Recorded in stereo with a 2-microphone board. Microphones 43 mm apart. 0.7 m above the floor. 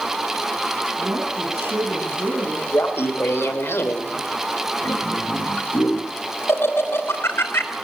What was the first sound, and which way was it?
A woman speaking, 65° right (ahead or behind).